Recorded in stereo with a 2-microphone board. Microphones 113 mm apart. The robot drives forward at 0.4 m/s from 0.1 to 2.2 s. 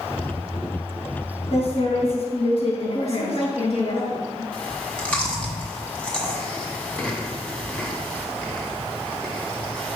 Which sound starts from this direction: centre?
Chewing, at 4.5 s.